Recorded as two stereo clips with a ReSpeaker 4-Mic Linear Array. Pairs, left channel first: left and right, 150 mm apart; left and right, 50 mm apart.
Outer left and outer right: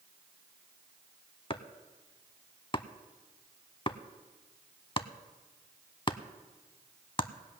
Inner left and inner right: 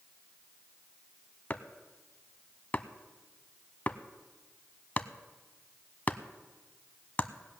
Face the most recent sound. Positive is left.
turn(degrees=35)  # may be behind; listen again after turning